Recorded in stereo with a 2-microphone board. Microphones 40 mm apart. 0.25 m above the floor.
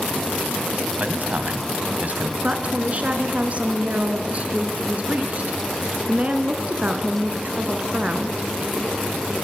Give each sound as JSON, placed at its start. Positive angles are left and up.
{"t": 1.0, "sound": "a man speaking", "side_deg": -40, "distance_m": 1.8}
{"t": 2.4, "sound": "a woman speaking", "side_deg": -35, "distance_m": 2.5}